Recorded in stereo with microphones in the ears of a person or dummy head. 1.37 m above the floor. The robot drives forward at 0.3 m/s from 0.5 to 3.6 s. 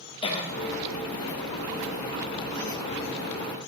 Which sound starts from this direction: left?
A cough, at 0.2 s.